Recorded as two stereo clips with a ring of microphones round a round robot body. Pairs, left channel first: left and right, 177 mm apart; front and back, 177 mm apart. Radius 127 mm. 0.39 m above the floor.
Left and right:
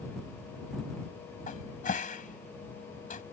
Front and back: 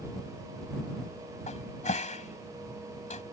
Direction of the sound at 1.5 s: 50° left.